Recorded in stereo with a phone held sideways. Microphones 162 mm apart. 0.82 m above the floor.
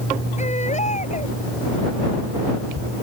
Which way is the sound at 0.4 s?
45° left (ahead or behind).